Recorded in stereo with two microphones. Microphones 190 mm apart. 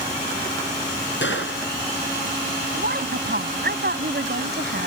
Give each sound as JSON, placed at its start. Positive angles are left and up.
{"t": 1.2, "sound": "a gunshot", "side_deg": 75}
{"t": 2.7, "sound": "a woman speaking", "side_deg": -60}